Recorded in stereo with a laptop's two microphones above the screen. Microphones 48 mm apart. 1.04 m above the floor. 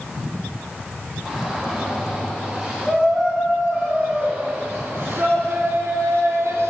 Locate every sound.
1.2 s a shout: centre (ahead or behind), 2.5 m; by 6.7 s 80° right, 1.8 m